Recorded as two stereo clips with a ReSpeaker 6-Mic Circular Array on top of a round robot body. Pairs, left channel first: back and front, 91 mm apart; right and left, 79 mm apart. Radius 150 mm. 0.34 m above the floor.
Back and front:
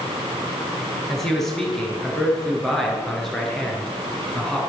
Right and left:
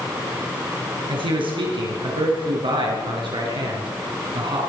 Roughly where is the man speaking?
Left.